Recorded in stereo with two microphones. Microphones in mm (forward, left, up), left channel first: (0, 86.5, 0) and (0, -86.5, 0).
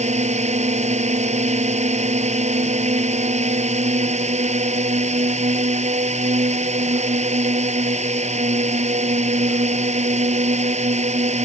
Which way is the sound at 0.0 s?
40° right (ahead or behind).